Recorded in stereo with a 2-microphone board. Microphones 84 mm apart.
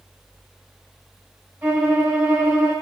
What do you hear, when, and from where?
1.6 s a violin: 20° right (ahead or behind), 3 m